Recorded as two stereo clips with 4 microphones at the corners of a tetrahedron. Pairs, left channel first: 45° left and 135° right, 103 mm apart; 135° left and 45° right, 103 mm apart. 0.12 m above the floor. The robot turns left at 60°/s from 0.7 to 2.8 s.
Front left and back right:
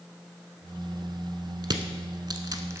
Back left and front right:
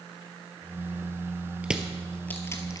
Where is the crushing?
120° right, 1.1 m; by 2.8 s 170° left, 1.1 m.